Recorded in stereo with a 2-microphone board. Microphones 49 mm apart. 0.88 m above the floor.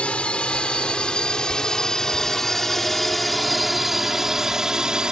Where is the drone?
25° left (ahead or behind); by 5.1 s 15° right (ahead or behind).